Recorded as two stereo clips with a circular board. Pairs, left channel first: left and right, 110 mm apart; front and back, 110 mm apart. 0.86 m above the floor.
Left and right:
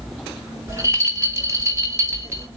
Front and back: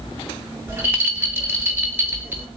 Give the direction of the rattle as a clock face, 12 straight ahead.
4 o'clock.